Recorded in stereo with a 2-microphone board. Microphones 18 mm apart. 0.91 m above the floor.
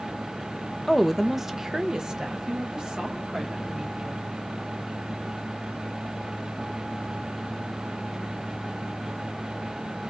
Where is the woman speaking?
15° left (ahead or behind), 0.5 m; by 4.2 s 55° right (ahead or behind), 2.5 m.